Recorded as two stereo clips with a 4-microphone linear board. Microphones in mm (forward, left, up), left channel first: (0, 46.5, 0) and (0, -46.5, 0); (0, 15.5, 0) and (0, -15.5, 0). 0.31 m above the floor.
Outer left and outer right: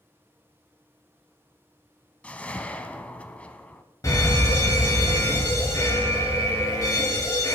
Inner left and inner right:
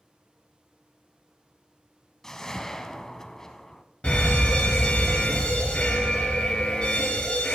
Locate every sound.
2.2 s a whoosh: 15° left (ahead or behind), 0.7 m
4.0 s a fire alarm: 35° left (ahead or behind), 3 m